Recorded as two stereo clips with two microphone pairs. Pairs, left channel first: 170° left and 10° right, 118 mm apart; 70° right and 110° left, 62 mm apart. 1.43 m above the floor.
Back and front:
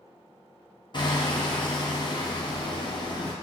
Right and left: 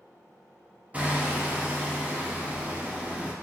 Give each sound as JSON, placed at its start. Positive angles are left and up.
{"t": 0.9, "sound": "hammering", "azimuth_deg": 160, "distance_m": 0.7}